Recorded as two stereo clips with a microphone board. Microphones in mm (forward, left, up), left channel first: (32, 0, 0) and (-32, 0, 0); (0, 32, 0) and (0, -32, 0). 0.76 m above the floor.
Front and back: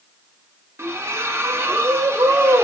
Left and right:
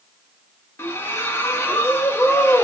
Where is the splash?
135° left, 0.7 m.